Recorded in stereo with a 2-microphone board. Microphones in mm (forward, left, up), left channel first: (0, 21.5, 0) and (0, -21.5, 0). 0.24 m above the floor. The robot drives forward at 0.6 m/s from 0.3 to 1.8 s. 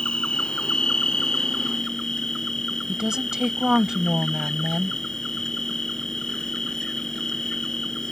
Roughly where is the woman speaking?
Centre.